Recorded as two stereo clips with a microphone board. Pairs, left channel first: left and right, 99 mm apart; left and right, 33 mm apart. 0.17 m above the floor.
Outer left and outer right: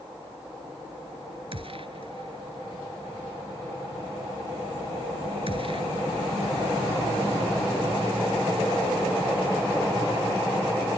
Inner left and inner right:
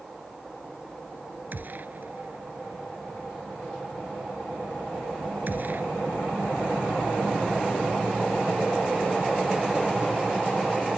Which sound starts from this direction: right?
A gunshot, at 1.5 s.